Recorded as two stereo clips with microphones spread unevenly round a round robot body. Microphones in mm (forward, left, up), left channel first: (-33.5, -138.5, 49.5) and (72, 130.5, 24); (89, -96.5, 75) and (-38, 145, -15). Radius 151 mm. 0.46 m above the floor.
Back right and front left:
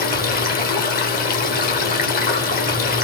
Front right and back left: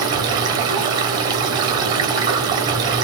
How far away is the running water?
About 1.1 m.